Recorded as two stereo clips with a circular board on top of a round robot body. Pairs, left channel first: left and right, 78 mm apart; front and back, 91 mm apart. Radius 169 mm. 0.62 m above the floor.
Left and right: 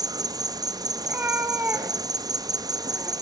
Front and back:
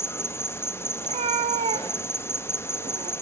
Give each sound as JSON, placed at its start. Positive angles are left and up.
{"t": 0.0, "sound": "an insect", "azimuth_deg": -60, "distance_m": 1.0}
{"t": 1.0, "sound": "a cat meowing", "azimuth_deg": -160, "distance_m": 0.9}